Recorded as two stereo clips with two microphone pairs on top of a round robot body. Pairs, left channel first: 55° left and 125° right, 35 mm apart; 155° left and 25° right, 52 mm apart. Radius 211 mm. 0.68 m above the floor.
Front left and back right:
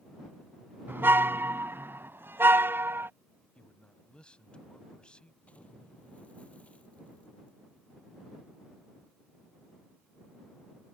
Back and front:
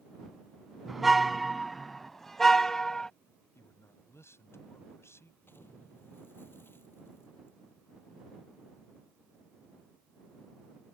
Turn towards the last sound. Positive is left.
turn(degrees=105)